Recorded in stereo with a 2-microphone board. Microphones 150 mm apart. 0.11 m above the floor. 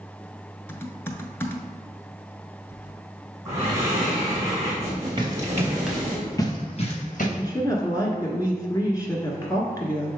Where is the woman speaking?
25° left (ahead or behind), 1.3 m.